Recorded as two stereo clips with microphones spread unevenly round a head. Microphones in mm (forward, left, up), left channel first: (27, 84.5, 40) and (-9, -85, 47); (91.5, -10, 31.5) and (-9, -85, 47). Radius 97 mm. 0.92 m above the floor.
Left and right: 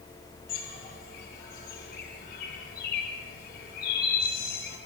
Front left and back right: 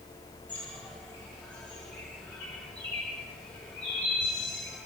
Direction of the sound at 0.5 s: 120° left.